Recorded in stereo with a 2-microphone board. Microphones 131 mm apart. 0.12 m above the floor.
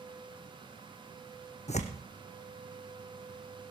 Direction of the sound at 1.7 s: 60° left (ahead or behind).